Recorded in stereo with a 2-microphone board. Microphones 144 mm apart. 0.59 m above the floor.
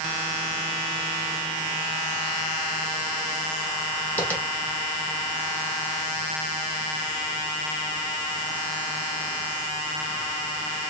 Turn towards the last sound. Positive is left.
turn(degrees=10)  # may be behind; listen again after turning